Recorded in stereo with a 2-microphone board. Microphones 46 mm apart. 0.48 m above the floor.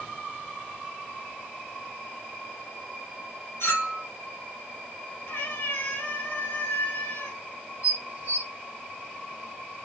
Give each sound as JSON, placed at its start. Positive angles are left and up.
{"t": 3.6, "sound": "a clink", "side_deg": 80, "distance_m": 3.0}
{"t": 5.3, "sound": "a cat meowing", "side_deg": 65, "distance_m": 2.5}
{"t": 7.8, "sound": "dishes clattering", "side_deg": -45, "distance_m": 0.8}